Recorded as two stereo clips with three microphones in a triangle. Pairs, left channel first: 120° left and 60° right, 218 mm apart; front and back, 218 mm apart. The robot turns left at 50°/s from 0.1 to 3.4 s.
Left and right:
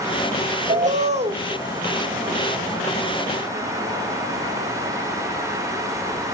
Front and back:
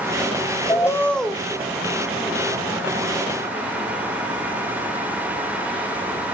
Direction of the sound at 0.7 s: 60° right.